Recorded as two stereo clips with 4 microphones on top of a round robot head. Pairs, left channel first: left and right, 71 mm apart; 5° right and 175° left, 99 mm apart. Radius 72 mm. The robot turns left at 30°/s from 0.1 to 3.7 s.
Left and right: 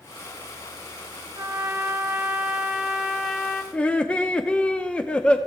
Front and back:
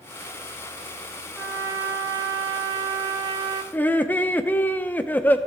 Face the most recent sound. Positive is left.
turn(degrees=40)